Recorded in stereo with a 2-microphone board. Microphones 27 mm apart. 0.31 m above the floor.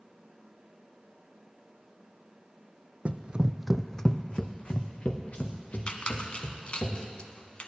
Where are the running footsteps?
55° right (ahead or behind), 0.8 m; by 6.9 s 60° left (ahead or behind), 3.5 m.